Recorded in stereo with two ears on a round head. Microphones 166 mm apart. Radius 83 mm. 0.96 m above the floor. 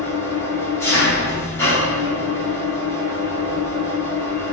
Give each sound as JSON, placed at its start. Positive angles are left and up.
{"t": 0.0, "sound": "an engine running", "side_deg": 15, "distance_m": 1.9}